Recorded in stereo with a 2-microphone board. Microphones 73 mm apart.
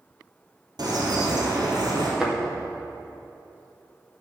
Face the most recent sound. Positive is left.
turn(degrees=-5)  # may be behind; listen again after turning